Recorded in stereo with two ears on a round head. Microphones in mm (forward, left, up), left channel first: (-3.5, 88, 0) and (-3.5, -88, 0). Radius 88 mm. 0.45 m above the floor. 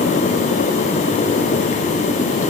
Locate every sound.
Only background noise.